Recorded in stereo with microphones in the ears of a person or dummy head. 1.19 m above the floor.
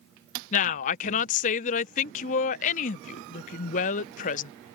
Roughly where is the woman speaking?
Left.